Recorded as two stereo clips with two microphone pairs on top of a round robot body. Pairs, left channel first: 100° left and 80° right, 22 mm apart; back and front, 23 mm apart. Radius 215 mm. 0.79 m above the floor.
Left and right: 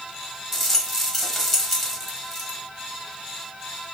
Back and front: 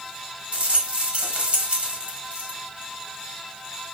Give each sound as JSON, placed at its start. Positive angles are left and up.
{"t": 0.5, "sound": "a rattle", "azimuth_deg": 15, "distance_m": 1.6}